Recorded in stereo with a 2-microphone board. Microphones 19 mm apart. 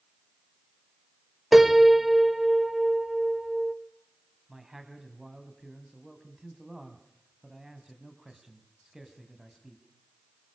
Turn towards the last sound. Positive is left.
turn(degrees=-25)  # may be behind; listen again after turning